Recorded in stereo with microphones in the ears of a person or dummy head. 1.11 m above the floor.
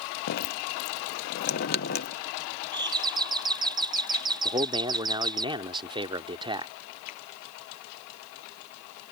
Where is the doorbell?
20° right (ahead or behind).